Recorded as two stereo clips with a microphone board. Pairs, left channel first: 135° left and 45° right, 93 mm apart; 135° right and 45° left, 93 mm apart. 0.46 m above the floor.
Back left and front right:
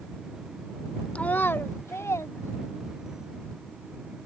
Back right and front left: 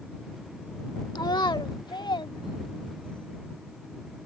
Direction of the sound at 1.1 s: 150° right.